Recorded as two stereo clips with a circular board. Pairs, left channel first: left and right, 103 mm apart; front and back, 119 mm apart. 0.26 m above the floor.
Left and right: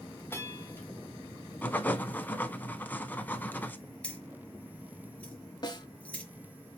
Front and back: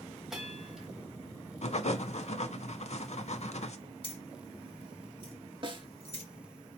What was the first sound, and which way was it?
A bell, 100° left.